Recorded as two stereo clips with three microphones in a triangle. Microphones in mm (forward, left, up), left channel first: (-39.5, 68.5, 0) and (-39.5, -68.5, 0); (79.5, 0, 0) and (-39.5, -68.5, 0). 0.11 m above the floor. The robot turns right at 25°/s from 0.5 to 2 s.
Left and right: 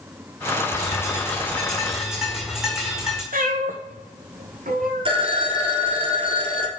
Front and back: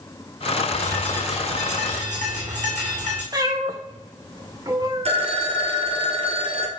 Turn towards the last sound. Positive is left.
turn(degrees=-125)